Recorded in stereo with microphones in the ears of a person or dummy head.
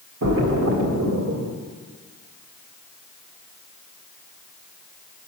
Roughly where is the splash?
Right.